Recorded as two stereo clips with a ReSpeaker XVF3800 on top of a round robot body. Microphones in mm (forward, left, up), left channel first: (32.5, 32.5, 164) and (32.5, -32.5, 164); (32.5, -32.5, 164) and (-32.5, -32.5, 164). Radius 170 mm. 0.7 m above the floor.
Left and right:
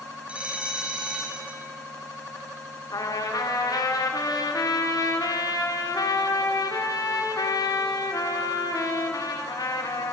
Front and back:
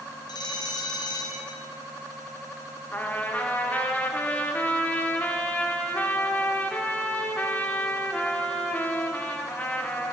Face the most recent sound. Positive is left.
turn(degrees=65)